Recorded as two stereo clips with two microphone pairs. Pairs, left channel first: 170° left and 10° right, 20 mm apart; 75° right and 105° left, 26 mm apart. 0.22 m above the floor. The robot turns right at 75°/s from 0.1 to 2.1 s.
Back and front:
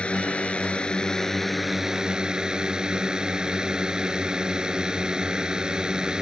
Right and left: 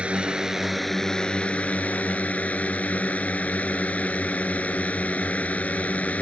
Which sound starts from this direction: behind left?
A drone, at 0.0 s.